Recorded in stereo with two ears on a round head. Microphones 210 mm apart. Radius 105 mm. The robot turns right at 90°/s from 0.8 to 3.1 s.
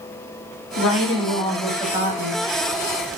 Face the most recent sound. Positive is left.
turn(degrees=-55)